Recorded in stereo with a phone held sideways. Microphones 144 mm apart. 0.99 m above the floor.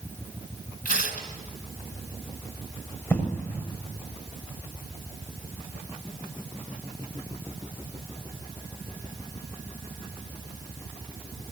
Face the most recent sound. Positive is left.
turn(degrees=15)  # may be behind; listen again after turning